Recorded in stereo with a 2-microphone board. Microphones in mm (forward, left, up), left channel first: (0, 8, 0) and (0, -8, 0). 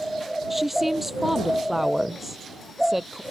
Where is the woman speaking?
15° right (ahead or behind).